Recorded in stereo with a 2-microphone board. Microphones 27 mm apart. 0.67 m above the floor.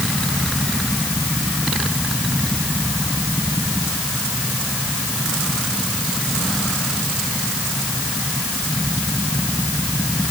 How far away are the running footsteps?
No running footsteps in this recording.